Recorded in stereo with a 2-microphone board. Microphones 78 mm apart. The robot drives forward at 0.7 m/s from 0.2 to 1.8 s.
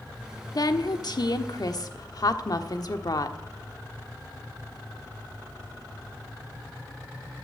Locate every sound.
0.6 s a woman speaking: 55° left (ahead or behind), 1.2 m